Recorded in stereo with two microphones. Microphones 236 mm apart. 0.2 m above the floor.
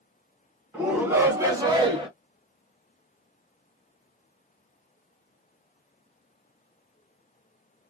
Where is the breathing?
I don't hear breathing.